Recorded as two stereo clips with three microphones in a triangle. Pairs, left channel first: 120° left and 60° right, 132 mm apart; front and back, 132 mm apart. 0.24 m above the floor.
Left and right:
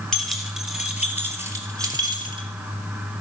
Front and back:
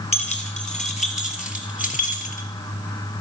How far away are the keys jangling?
About 3.5 m.